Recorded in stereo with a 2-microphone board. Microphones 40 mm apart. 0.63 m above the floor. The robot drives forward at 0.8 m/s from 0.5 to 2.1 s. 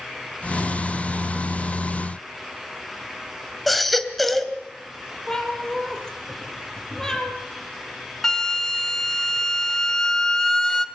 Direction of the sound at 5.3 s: 15° left (ahead or behind).